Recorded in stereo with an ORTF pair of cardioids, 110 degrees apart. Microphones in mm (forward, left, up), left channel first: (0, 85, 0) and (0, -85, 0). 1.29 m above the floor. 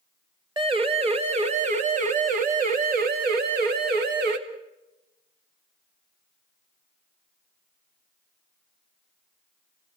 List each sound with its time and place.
0.6 s a siren: 30° right, 3 m; by 4.4 s 70° right, 3 m